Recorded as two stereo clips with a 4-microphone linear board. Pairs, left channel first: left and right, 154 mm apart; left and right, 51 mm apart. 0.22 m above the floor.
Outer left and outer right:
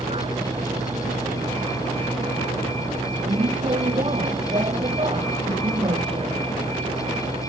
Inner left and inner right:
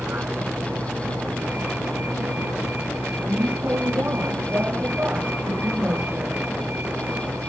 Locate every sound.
0.0 s a vehicle: 40° right (ahead or behind)